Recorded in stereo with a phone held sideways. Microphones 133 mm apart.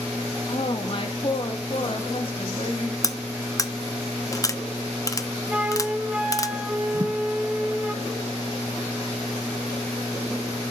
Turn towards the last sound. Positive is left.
turn(degrees=-25)  # may be behind; listen again after turning